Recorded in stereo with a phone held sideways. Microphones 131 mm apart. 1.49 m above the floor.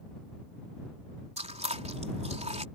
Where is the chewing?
55° right (ahead or behind).